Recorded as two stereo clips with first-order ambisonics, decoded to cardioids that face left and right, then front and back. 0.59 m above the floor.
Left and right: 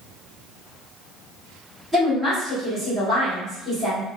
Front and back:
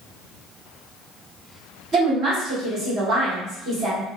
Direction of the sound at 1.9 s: 175° left.